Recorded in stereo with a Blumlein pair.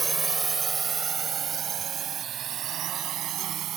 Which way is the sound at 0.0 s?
10° right.